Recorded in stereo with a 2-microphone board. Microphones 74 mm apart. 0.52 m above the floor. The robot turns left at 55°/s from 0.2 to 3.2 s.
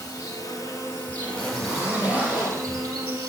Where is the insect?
80° left, 3 m; by 3.3 s 85° right, 3 m.